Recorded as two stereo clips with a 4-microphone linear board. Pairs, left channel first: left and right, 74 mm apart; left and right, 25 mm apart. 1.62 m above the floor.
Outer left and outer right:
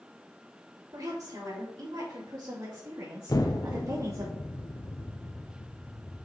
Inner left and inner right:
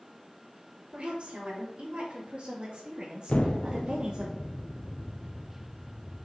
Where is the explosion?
55° left (ahead or behind), 0.8 m.